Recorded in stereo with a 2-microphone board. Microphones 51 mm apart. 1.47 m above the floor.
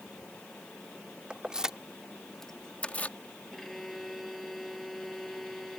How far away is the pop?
I don't hear a pop.